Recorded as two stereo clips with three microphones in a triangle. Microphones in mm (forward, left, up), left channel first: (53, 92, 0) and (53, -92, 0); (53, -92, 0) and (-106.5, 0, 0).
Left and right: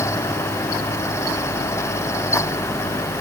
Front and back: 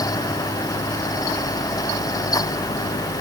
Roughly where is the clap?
I don't hear a clap.